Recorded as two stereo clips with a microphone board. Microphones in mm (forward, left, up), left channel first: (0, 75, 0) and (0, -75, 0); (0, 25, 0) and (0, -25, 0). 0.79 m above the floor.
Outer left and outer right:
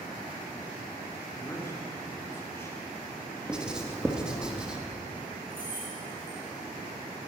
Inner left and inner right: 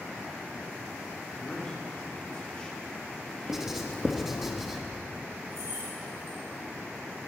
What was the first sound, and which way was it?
A man speaking, 15° left (ahead or behind).